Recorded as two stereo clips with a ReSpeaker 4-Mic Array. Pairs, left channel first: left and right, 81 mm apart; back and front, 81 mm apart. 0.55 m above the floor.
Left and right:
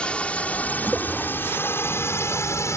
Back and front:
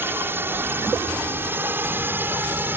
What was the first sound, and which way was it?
A drone, 25° left.